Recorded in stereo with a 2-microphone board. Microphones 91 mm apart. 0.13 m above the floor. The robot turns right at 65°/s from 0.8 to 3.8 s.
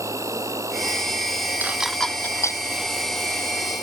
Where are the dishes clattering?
20° right (ahead or behind); by 2.6 s 40° left (ahead or behind).